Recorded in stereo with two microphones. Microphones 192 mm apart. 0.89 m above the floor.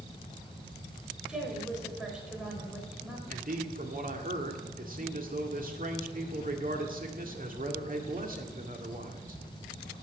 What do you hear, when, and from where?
1.3 s a woman speaking: 5° right (ahead or behind), 4.5 m
3.3 s a man speaking: 45° right (ahead or behind), 2.0 m